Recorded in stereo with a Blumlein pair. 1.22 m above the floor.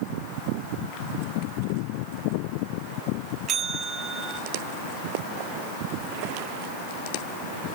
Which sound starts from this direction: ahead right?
A bell, at 3.5 s.